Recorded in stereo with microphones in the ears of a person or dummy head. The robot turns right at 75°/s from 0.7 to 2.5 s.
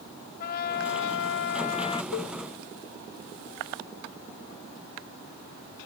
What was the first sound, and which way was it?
A trumpet, 60° left.